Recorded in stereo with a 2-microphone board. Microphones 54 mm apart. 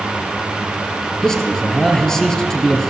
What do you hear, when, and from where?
1.2 s a man speaking: 10° left (ahead or behind), 3 m